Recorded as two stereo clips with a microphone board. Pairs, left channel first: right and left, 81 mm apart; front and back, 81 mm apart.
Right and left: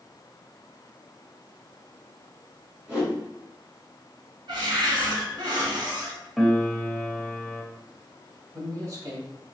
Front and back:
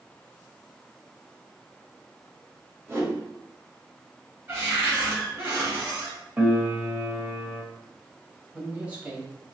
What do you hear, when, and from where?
2.9 s a whoosh: 160° left, 1.8 m
4.5 s a cupboard door: 120° left, 2 m
6.4 s a piano: straight behind, 0.8 m
8.5 s a man speaking: 115° left, 1.5 m